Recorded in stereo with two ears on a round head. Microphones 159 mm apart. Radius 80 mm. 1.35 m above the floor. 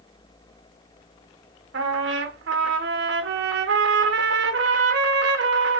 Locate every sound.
1.7 s a trumpet: 75° right (ahead or behind), 1.0 m